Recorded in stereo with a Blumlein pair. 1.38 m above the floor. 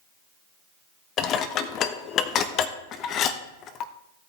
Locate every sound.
1.2 s dishes clattering: 30° left, 1.0 m